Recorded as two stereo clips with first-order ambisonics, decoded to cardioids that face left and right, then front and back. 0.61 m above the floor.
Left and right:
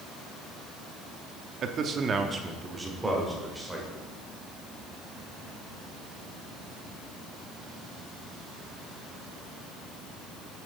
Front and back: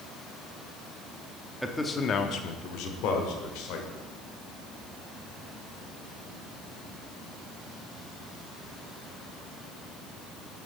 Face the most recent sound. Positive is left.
turn(degrees=-5)